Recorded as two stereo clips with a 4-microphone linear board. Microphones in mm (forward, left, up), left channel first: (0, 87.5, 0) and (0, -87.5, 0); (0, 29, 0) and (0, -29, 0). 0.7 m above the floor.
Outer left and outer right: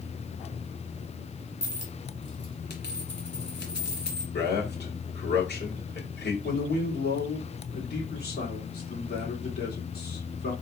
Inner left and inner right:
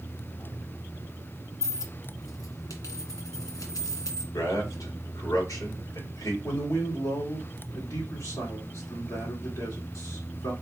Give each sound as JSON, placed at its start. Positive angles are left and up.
{"t": 1.6, "sound": "a dropped coin", "side_deg": 70, "distance_m": 1.5}
{"t": 4.3, "sound": "a man speaking", "side_deg": 65, "distance_m": 2.0}
{"t": 6.4, "sound": "a man speaking", "side_deg": 60, "distance_m": 2.5}